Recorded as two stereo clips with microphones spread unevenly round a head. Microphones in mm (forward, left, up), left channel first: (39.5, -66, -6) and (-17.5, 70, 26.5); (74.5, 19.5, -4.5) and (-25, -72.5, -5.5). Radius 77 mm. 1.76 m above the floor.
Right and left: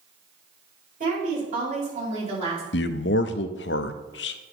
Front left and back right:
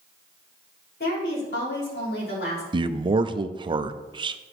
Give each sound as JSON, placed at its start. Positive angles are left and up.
{"t": 1.0, "sound": "a woman speaking", "azimuth_deg": 75, "distance_m": 5.0}
{"t": 2.7, "sound": "a man speaking", "azimuth_deg": -80, "distance_m": 0.7}